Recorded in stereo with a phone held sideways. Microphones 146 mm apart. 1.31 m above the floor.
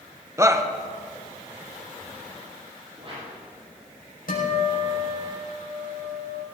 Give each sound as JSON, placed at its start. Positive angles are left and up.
{"t": 0.4, "sound": "a shout", "side_deg": -20, "distance_m": 1.1}
{"t": 3.0, "sound": "a whoosh", "side_deg": -40, "distance_m": 7.0}
{"t": 4.3, "sound": "a guitar", "side_deg": 75, "distance_m": 5.0}